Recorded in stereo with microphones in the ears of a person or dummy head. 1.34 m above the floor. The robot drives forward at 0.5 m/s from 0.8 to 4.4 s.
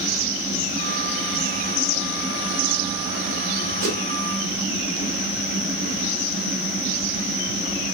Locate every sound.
3.8 s a whoosh: 80° right, 1.7 m